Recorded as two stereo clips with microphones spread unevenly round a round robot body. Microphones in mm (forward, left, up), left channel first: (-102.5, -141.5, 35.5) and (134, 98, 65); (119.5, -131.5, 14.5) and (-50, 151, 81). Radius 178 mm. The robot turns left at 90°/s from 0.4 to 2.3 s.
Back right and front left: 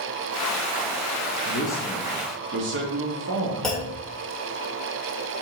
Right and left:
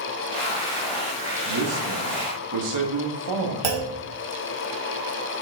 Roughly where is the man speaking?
Behind.